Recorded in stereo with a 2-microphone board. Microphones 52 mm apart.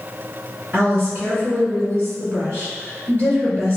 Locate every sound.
0.7 s a woman speaking: 45° right (ahead or behind), 1.9 m